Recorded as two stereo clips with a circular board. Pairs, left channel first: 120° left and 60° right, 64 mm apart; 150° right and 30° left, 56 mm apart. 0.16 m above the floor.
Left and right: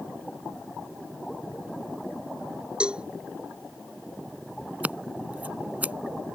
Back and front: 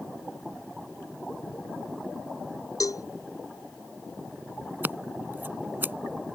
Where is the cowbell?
135° right.